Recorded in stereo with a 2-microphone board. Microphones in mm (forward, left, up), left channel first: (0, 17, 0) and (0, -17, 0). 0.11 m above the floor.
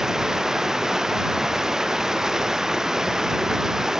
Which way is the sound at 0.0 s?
15° right (ahead or behind).